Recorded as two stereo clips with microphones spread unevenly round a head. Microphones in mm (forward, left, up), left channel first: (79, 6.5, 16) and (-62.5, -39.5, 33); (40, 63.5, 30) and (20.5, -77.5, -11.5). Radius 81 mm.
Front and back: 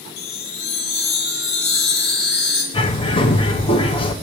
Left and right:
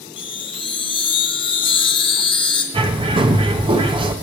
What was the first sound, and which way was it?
A chime, 45° left.